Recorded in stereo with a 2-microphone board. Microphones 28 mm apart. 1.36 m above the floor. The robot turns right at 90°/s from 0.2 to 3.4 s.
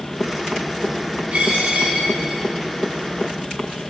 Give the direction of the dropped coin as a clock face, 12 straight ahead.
4 o'clock.